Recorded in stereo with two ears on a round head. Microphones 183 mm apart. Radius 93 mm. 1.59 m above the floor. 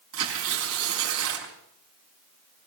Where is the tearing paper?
75° right (ahead or behind), 5.5 m.